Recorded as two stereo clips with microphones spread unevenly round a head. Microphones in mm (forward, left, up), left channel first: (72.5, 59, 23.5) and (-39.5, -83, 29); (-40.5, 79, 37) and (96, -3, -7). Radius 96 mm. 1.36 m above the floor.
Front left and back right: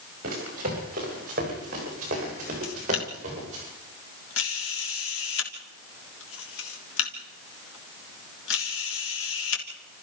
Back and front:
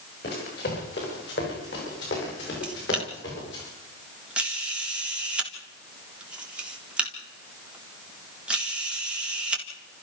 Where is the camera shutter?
50° left, 3.5 m.